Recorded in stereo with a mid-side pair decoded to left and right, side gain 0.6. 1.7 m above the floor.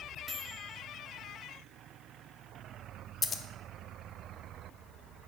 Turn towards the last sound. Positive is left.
turn(degrees=35)